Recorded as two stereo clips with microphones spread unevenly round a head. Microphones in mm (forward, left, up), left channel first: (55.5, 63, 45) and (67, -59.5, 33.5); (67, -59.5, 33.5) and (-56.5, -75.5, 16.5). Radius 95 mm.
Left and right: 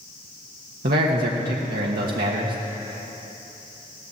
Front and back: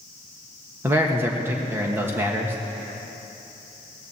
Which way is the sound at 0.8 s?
100° right.